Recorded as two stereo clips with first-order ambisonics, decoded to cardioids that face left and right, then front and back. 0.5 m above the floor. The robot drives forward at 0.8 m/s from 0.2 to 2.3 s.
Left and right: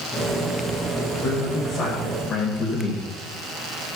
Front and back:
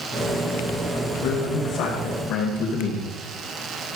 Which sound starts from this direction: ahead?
A man speaking, at 0.9 s.